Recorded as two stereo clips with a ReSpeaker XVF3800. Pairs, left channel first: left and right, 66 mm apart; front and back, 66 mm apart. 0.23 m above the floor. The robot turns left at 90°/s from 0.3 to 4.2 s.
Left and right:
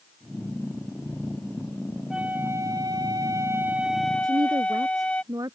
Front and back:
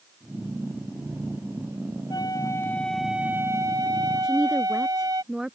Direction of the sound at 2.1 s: 10° right.